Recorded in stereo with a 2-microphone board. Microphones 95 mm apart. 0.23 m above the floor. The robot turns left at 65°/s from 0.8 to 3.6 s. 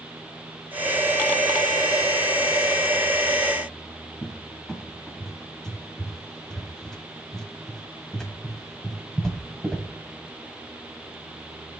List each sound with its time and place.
4.2 s a cupboard door: 5° left (ahead or behind), 1.1 m